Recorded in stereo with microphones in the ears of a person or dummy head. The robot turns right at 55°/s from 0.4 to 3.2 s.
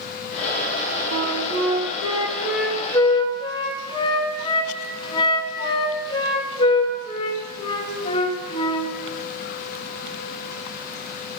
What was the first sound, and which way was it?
A flute, 85° right.